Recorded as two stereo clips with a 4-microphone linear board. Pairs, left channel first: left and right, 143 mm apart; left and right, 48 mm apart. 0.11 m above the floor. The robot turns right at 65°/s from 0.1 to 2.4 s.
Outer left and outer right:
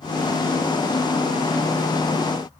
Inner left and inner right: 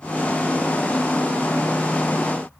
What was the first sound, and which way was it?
Only background noise.